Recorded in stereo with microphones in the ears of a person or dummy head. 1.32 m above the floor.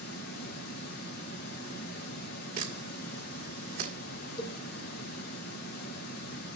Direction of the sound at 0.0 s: 60° left (ahead or behind).